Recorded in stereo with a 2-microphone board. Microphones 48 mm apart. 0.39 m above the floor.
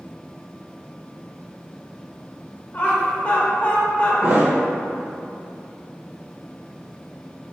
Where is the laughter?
35° left (ahead or behind), 0.9 m.